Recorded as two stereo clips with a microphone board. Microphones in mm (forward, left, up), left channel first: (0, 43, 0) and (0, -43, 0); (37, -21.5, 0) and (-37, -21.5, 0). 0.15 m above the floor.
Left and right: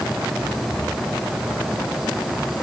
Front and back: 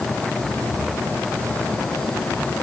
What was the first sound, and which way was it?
Only background noise.